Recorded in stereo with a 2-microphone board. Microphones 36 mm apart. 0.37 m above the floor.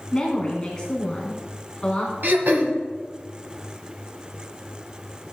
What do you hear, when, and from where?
0.1 s a woman speaking: 25° left (ahead or behind), 3.5 m
2.2 s throat clearing: 65° right (ahead or behind), 1.5 m